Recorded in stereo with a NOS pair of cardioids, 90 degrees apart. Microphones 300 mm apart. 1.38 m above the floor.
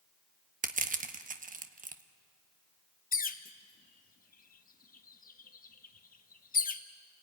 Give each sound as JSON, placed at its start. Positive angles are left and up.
{"t": 0.6, "sound": "crushing", "azimuth_deg": -25, "distance_m": 1.3}
{"t": 3.1, "sound": "a bird", "azimuth_deg": 30, "distance_m": 1.3}